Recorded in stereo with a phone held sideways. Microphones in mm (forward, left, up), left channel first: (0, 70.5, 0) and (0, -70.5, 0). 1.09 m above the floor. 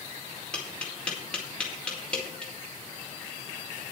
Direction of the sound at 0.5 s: 5° left (ahead or behind).